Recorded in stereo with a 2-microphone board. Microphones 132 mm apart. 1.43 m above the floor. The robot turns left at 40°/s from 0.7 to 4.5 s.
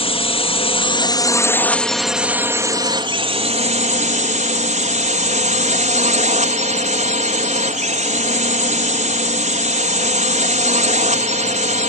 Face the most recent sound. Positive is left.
turn(degrees=-100)